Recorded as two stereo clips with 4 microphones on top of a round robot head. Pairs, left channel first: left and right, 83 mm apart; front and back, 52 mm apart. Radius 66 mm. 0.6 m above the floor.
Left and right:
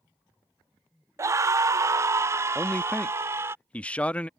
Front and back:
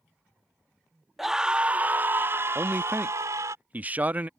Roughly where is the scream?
Right.